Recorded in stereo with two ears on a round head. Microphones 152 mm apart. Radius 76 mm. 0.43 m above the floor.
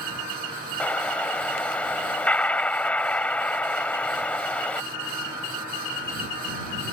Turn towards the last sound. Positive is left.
turn(degrees=5)  # may be behind; listen again after turning